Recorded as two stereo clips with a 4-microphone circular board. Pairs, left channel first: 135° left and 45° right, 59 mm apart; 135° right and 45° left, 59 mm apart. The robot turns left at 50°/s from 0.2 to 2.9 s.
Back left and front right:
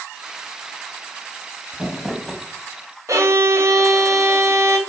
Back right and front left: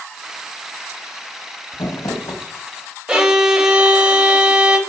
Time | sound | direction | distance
1.7 | crumpling | 115° right | 0.7 m
3.1 | a violin | 30° right | 0.8 m